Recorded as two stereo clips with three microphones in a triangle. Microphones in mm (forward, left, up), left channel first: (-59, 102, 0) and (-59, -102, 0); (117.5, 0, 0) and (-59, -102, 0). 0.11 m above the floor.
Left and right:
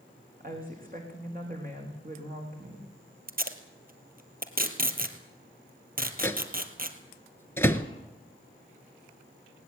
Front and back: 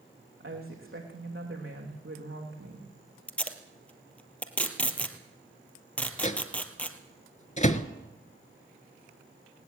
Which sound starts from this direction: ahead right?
Tape being pulled, at 3.3 s.